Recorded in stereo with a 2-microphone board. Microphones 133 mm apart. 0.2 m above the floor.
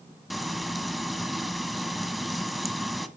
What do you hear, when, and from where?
0.3 s frying: centre (ahead or behind), 1.3 m